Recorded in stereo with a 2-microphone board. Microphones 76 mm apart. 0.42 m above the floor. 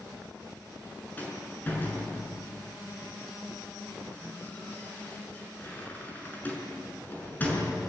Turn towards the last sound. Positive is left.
turn(degrees=25)  # may be behind; listen again after turning